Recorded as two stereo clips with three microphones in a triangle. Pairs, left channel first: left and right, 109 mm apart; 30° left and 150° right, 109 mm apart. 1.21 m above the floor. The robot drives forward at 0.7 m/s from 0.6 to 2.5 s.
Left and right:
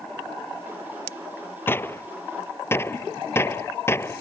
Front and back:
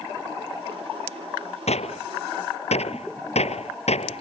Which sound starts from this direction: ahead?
A gunshot, at 1.7 s.